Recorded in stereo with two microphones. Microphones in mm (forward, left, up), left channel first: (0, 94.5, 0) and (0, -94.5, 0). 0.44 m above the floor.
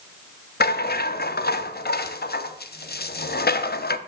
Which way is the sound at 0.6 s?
60° left (ahead or behind).